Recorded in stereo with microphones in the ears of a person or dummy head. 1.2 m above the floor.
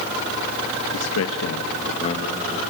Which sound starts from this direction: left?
A man speaking, at 0.9 s.